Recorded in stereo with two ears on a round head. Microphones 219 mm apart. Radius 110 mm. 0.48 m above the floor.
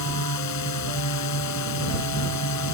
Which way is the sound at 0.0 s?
75° left (ahead or behind).